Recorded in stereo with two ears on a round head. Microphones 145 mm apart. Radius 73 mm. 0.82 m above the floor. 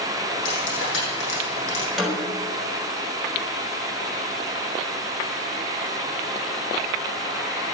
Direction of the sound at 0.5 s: 90° left.